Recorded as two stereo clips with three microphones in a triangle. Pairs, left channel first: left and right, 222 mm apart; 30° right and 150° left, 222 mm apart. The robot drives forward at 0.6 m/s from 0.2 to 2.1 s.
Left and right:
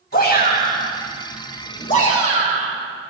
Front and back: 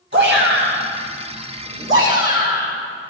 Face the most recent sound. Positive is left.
turn(degrees=145)